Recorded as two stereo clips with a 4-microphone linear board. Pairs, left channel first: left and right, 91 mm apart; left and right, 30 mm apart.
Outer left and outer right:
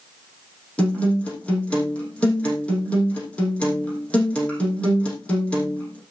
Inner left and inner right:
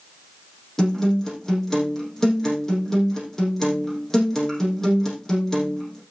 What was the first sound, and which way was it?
A guitar, 15° left (ahead or behind).